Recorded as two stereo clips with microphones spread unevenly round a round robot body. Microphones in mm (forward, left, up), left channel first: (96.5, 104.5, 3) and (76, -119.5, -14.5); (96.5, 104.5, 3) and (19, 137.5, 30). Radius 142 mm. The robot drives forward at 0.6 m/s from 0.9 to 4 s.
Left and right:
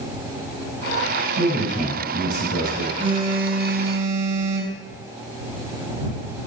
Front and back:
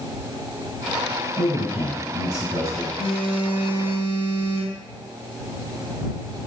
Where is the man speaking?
115° right, 3 m; by 2.9 s 130° right, 3.5 m.